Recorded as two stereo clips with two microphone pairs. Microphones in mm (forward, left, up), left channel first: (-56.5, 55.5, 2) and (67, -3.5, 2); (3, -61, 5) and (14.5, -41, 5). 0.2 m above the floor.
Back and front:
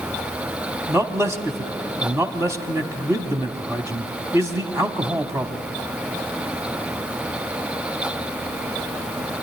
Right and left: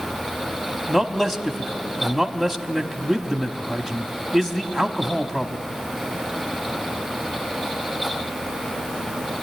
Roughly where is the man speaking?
Ahead right.